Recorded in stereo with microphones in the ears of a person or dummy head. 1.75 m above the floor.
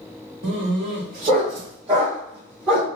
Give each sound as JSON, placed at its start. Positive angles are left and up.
{"t": 0.4, "sound": "a dog barking", "side_deg": -50, "distance_m": 2.0}